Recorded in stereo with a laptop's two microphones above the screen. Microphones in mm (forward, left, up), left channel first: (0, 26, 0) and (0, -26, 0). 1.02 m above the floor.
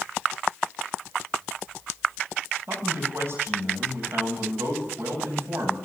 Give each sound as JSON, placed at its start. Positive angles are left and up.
{"t": 2.7, "sound": "a man speaking", "side_deg": -60, "distance_m": 8.5}